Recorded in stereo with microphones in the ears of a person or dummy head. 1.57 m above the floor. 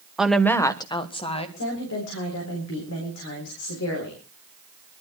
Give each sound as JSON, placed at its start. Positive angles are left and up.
{"t": 0.2, "sound": "a woman speaking", "side_deg": 0, "distance_m": 1.0}
{"t": 1.6, "sound": "a woman speaking", "side_deg": 85, "distance_m": 4.0}